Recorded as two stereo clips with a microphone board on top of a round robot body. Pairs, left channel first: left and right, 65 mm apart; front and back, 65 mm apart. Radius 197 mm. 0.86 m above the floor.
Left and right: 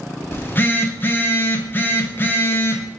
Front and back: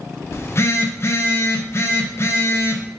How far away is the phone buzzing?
About 0.7 m.